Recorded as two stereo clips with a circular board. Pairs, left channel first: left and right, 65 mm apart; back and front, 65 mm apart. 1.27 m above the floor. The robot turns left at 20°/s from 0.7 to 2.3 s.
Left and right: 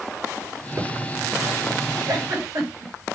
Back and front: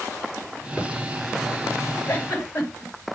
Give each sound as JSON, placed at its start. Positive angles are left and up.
{"t": 0.8, "sound": "a thud", "azimuth_deg": -100, "distance_m": 6.0}
{"t": 2.1, "sound": "a giggle", "azimuth_deg": -120, "distance_m": 6.0}